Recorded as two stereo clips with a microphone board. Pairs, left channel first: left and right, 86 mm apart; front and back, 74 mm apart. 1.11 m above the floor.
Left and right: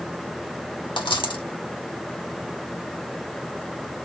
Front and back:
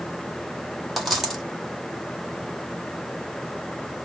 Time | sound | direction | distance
1.0 | a dropped coin | 90° left | 2 m